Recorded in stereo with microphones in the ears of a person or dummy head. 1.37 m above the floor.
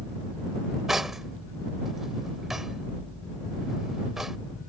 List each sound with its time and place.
0.9 s cutlery clinking: centre (ahead or behind)